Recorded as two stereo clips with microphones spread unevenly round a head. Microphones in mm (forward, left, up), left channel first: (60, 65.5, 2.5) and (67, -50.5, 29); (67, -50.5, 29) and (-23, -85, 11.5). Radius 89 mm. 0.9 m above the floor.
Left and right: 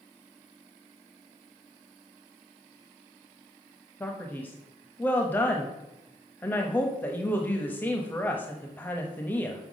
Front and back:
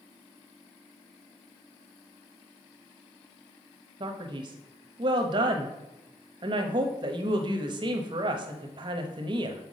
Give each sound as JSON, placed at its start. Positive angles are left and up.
{"t": 4.0, "sound": "a man speaking", "azimuth_deg": 165, "distance_m": 0.7}